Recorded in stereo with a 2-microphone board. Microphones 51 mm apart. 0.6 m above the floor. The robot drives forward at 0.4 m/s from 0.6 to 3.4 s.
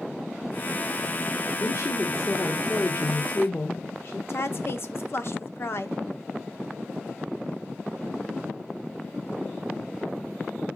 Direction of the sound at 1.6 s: 60° left (ahead or behind).